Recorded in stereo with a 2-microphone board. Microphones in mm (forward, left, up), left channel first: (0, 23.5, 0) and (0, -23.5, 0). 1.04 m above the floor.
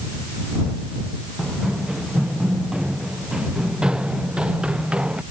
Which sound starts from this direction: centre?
Running footsteps, at 1.4 s.